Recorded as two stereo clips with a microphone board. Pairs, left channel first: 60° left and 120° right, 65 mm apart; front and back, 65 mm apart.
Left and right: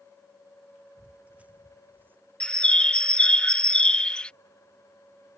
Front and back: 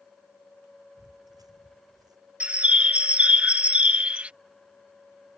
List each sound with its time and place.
1.0 s footsteps: 165° left; by 2.2 s straight behind
2.4 s a bird: 120° left